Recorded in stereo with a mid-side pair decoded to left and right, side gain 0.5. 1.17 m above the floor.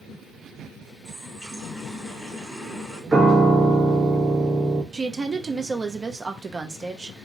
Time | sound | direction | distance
1.1 | a running tap | 5° left | 1.5 m
3.1 | a piano | 20° right | 0.8 m
4.9 | a woman speaking | 30° right | 0.6 m